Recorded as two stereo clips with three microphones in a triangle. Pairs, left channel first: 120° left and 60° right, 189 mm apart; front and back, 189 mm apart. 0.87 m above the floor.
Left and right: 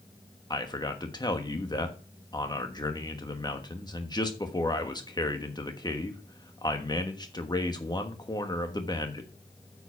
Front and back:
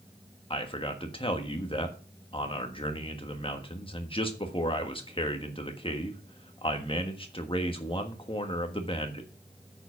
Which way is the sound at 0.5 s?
55° left.